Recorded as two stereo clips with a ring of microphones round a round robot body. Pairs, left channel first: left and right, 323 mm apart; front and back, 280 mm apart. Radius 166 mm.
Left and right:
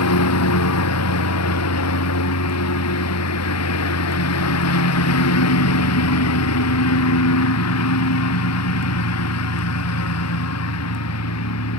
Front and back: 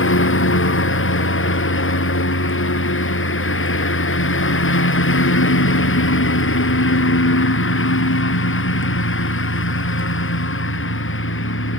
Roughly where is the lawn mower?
Ahead left.